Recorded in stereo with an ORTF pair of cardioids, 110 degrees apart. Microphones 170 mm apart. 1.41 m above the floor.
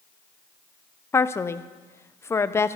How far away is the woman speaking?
About 0.6 m.